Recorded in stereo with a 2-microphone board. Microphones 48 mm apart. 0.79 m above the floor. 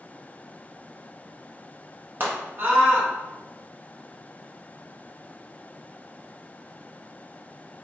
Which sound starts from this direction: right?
A scream, at 2.2 s.